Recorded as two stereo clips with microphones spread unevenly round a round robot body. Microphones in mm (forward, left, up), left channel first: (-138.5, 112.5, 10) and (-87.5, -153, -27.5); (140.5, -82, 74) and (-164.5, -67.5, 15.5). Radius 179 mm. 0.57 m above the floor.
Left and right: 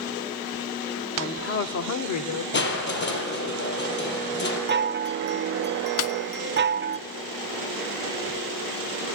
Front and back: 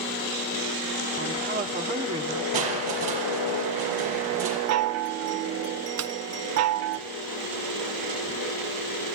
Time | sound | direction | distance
1.2 | a woman speaking | 160° left | 1.5 m
2.5 | crushing | 150° left | 5.5 m
4.7 | a chime | 140° right | 0.5 m
6.0 | a snare drum | 120° left | 0.9 m